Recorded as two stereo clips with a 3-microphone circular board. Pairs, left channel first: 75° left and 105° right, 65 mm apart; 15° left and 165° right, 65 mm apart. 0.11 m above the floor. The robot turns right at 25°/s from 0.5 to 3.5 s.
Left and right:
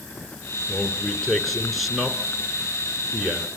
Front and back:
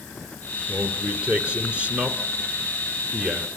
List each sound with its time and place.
0.7 s a man speaking: 135° left, 1.6 m; by 3.5 s 155° right, 1.6 m